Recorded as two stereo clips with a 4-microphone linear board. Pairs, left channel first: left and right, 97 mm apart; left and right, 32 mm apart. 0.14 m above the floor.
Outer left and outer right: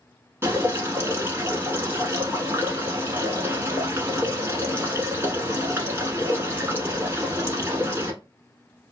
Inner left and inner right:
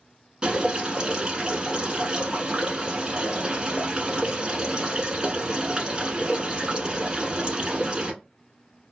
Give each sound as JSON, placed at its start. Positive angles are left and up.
{"t": 0.4, "sound": "dripping", "side_deg": -25, "distance_m": 0.9}